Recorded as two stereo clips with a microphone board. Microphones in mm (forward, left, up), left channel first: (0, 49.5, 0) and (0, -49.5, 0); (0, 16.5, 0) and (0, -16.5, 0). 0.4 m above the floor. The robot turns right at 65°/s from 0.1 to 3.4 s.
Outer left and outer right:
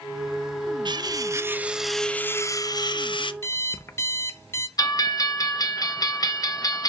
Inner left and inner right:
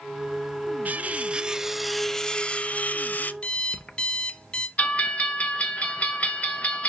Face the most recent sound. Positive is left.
turn(degrees=40)  # may be behind; listen again after turning